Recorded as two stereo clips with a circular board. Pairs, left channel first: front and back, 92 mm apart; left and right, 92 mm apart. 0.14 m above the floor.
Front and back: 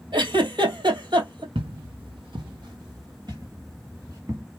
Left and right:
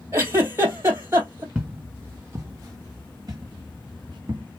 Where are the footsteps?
165° right, 1.3 m; by 4.4 s 125° right, 2.5 m.